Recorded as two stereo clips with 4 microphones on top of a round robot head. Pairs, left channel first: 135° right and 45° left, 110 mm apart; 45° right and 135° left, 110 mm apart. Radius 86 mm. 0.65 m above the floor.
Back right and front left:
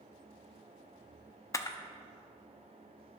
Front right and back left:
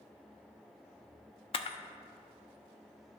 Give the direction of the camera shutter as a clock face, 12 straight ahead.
3 o'clock.